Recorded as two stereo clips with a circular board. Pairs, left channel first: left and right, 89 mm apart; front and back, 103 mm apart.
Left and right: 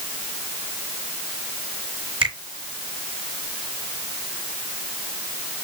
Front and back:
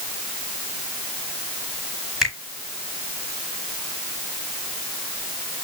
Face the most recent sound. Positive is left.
turn(degrees=-95)